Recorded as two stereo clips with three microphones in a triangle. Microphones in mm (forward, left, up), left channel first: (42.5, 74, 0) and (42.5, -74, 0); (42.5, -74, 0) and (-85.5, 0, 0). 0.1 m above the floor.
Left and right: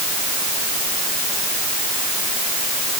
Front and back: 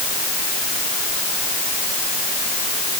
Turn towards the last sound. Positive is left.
No sound to turn to.